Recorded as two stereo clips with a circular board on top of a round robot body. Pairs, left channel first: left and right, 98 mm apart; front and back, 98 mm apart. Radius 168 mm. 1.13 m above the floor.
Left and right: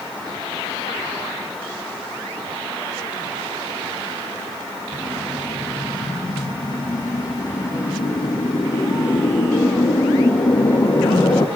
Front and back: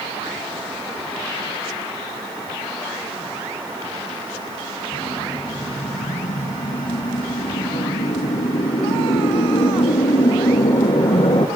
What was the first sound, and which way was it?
A whoosh, 35° left.